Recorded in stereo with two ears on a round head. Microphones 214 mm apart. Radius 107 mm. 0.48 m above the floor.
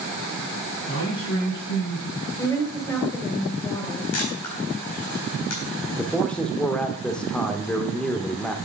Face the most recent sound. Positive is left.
turn(degrees=5)  # may be behind; listen again after turning